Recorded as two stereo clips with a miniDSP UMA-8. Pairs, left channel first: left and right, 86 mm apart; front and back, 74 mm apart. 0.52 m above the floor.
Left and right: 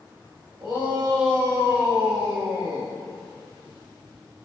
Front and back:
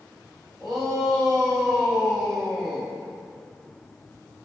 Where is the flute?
I don't hear a flute.